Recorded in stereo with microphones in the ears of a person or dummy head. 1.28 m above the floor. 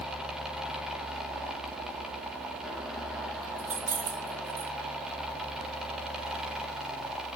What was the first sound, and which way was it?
Keys jangling, 50° right (ahead or behind).